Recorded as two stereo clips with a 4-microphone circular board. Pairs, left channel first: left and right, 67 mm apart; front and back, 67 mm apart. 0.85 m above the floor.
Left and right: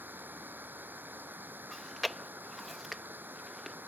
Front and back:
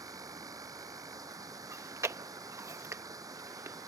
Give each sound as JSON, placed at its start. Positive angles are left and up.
{"t": 0.0, "sound": "running water", "azimuth_deg": -150}
{"t": 1.7, "sound": "chewing", "azimuth_deg": 180}